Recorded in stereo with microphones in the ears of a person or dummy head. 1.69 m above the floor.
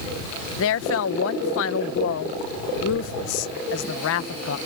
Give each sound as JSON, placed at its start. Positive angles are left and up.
{"t": 0.6, "sound": "a woman speaking", "side_deg": 70}